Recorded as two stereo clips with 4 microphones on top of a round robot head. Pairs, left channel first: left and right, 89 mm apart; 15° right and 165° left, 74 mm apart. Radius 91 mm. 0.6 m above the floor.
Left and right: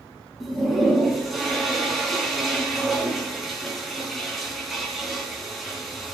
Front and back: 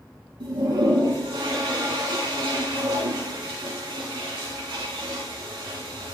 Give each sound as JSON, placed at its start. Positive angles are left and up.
{"t": 0.4, "sound": "a toilet flushing", "azimuth_deg": 180, "distance_m": 4.0}